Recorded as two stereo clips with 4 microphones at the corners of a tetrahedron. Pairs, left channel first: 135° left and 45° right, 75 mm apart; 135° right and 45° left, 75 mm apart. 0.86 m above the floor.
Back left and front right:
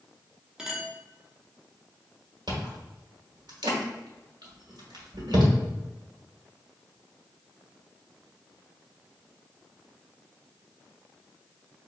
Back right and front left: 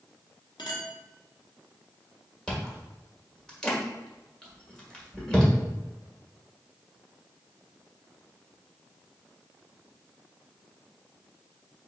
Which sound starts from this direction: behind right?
A clink, at 0.6 s.